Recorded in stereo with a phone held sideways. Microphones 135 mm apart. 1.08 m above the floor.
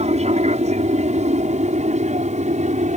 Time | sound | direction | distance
0.0 | an aircraft | 50° right (ahead or behind) | ?